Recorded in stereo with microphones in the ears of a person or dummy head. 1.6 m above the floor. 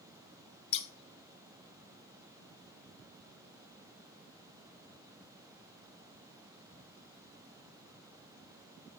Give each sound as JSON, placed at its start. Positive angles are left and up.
{"t": 0.7, "sound": "scissors", "side_deg": 30, "distance_m": 0.9}